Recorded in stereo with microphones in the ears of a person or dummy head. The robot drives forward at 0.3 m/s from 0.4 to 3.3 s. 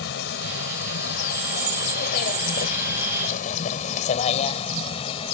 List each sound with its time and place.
0.0 s a vehicle: 65° left (ahead or behind); by 5.3 s 30° left (ahead or behind)